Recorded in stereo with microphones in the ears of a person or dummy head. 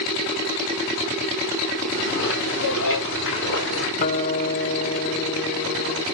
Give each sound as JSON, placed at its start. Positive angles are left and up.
{"t": 1.9, "sound": "footsteps", "side_deg": 75, "distance_m": 9.0}
{"t": 4.0, "sound": "a guitar", "side_deg": 45, "distance_m": 0.6}